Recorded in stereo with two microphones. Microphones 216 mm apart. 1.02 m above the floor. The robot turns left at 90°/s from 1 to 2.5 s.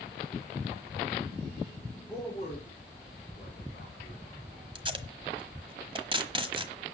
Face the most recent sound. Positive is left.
turn(degrees=-25)  # may be behind; listen again after turning